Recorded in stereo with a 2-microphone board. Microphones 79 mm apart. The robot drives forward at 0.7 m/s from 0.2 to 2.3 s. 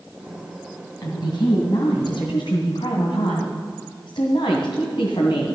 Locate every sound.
1.0 s a woman speaking: 65° left (ahead or behind), 2.5 m; by 5.5 s 70° left (ahead or behind), 2.5 m